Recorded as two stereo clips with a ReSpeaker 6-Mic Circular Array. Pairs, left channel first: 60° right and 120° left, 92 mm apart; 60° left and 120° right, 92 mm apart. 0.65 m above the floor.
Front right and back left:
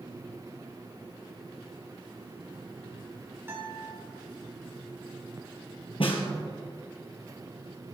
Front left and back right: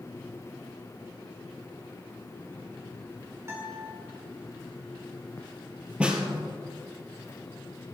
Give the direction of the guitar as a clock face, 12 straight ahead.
6 o'clock.